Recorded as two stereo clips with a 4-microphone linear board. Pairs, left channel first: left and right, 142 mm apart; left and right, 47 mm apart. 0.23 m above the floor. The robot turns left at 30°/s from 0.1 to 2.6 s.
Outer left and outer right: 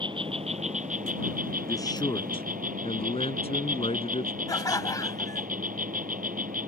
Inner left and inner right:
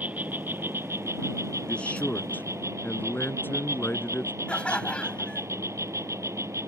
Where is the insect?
35° right; by 6.7 s 110° right.